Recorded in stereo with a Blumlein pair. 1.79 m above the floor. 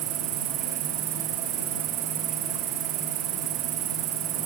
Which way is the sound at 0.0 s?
35° right.